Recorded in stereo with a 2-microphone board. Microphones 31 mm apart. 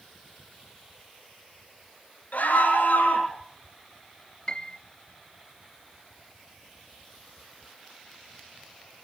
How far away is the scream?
About 4.5 m.